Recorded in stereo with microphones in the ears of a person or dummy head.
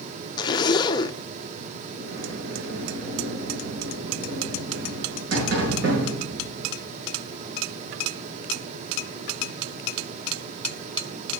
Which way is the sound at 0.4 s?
25° left (ahead or behind).